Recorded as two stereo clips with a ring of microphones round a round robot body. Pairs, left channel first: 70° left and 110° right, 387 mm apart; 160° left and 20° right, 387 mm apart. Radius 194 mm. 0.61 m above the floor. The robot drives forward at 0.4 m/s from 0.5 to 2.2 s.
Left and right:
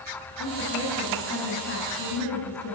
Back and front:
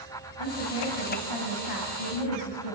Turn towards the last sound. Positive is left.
turn(degrees=130)